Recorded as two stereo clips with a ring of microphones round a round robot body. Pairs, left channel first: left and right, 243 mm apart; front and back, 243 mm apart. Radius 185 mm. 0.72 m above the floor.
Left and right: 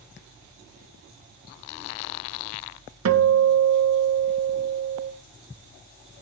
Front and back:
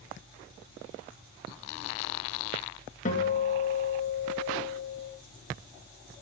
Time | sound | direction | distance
3.0 | a guitar | 70° right | 2 m